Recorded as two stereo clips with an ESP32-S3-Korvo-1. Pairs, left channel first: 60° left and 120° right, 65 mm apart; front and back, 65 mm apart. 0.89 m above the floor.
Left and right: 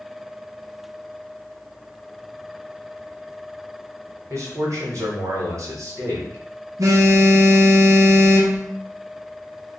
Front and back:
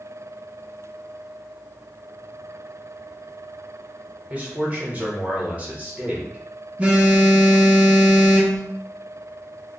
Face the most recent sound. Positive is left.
turn(degrees=-115)